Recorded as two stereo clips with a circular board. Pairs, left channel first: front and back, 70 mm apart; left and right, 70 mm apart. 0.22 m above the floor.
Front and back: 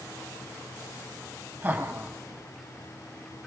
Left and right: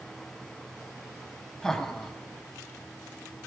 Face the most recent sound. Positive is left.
turn(degrees=165)